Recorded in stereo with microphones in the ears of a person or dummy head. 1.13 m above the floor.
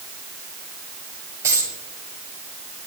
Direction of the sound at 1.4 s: 15° right (ahead or behind).